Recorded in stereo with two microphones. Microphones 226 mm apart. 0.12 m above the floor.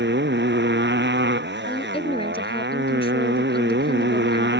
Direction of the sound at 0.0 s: 50° right (ahead or behind).